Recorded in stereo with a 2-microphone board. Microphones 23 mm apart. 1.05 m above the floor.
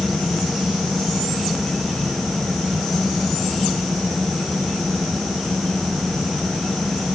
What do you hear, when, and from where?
Only background noise.